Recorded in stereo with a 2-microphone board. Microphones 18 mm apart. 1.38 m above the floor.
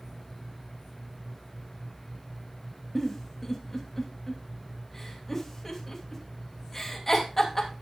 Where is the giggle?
10° left (ahead or behind), 2.5 m.